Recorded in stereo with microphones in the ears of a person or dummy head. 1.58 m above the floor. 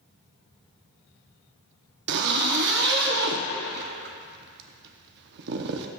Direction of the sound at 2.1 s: 60° right (ahead or behind).